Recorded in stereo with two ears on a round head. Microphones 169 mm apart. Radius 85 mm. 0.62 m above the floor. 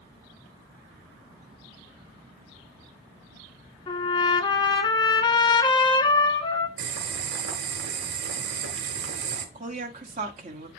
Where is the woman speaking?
40° right (ahead or behind), 1.5 m.